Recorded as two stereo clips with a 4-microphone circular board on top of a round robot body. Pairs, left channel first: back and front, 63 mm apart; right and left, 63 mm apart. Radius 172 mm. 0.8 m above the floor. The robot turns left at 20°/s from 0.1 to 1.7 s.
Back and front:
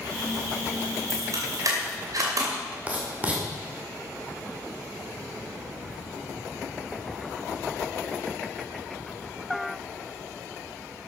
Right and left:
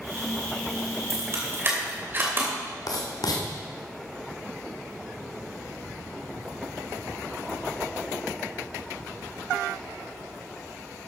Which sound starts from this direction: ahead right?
Writing, at 2.9 s.